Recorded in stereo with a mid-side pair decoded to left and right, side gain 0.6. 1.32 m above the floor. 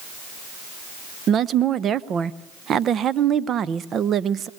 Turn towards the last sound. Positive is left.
turn(degrees=-45)